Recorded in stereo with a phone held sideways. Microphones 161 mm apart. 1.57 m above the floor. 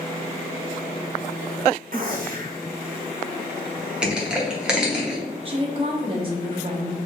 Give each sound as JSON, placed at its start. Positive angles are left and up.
{"t": 1.9, "sound": "a gunshot", "side_deg": -65, "distance_m": 0.8}
{"t": 4.0, "sound": "crushing", "side_deg": -5, "distance_m": 1.1}
{"t": 5.5, "sound": "a woman speaking", "side_deg": -35, "distance_m": 1.0}